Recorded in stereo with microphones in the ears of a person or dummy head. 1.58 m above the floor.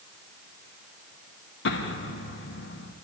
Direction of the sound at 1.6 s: 70° left (ahead or behind).